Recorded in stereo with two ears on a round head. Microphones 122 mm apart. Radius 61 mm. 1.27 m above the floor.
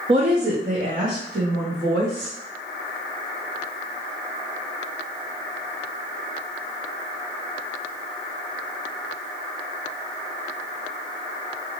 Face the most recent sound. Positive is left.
turn(degrees=-75)  # may be behind; listen again after turning